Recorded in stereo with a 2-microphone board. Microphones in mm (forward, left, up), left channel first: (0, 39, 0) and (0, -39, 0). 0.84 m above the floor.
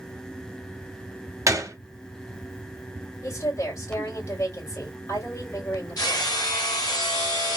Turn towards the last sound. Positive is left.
turn(degrees=55)  # may be behind; listen again after turning